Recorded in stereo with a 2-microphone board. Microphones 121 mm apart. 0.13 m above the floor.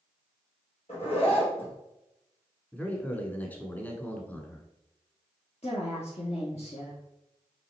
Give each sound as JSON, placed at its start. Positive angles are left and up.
{"t": 0.9, "sound": "a zipper", "side_deg": 60, "distance_m": 3.5}
{"t": 2.7, "sound": "a man speaking", "side_deg": 15, "distance_m": 1.1}
{"t": 5.6, "sound": "a woman speaking", "side_deg": 60, "distance_m": 2.0}